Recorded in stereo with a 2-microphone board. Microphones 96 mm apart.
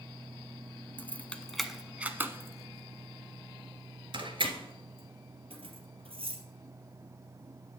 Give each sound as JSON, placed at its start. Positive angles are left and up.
{"t": 1.0, "sound": "keys jangling", "side_deg": 25, "distance_m": 0.9}